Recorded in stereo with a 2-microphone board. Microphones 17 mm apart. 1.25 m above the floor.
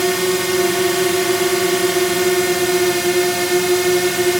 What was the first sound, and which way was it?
A drone, 5° right (ahead or behind).